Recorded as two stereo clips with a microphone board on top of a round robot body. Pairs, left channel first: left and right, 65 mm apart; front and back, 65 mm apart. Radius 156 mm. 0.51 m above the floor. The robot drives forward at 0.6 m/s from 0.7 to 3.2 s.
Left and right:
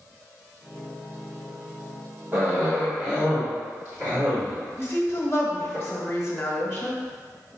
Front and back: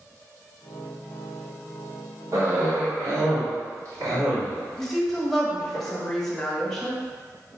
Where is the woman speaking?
80° left, 1.1 m.